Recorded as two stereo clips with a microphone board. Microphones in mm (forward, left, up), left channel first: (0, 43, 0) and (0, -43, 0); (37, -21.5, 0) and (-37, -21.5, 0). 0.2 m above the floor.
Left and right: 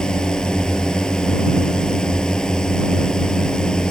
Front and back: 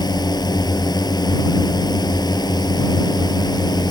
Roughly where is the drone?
Ahead.